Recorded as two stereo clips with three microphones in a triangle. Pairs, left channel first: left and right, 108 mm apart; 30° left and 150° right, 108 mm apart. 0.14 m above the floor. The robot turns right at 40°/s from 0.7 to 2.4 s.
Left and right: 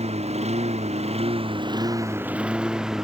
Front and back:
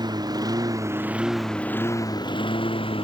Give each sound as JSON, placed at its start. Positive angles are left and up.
{"t": 0.0, "sound": "a lawn mower", "azimuth_deg": -100}